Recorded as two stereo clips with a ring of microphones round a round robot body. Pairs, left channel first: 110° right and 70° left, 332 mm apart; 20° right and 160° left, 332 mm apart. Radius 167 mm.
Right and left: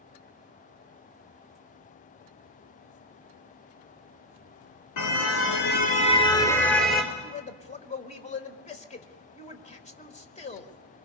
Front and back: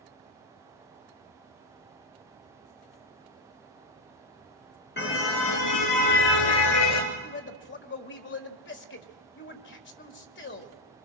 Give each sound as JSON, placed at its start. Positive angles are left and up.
{"t": 5.0, "sound": "a car horn", "azimuth_deg": -80, "distance_m": 2.5}
{"t": 7.1, "sound": "a man speaking", "azimuth_deg": -55, "distance_m": 1.8}